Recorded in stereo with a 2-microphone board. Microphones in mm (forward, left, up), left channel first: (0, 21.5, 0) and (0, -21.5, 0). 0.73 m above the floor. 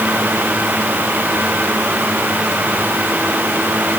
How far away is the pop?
I don't hear a pop.